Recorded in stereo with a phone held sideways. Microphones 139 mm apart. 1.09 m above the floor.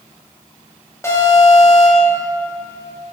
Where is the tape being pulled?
No tape being pulled in this recording.